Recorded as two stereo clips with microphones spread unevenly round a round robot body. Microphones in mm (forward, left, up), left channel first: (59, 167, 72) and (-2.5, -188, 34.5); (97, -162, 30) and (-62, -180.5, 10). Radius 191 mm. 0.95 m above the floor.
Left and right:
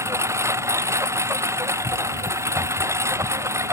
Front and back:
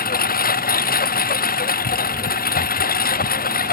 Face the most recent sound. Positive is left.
turn(degrees=-15)